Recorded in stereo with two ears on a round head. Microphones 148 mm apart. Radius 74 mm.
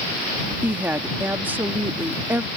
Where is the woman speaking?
10° right (ahead or behind).